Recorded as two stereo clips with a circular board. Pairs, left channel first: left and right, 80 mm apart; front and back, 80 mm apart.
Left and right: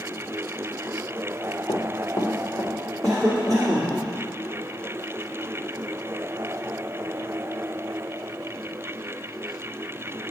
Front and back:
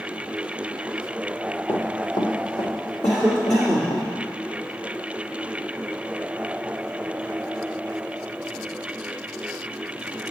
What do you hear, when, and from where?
1.7 s running footsteps: 55° left, 1.2 m; by 4.0 s 5° left, 2.5 m
3.0 s a cough: 65° right, 2 m